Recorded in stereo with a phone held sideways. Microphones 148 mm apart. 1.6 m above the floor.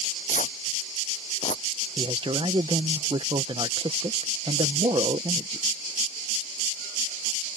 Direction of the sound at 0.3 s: 60° left (ahead or behind).